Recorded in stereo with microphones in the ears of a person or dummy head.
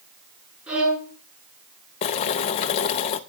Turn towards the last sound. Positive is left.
turn(degrees=35)  # may be behind; listen again after turning